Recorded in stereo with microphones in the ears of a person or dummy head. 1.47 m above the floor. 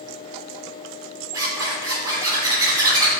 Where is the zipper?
25° right (ahead or behind), 3 m.